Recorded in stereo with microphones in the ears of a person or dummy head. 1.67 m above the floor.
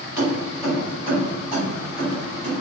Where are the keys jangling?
15° right (ahead or behind), 1.8 m; by 2.5 s 65° right (ahead or behind), 2 m.